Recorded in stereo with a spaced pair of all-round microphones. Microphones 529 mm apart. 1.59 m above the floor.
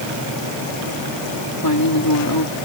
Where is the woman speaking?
40° left (ahead or behind).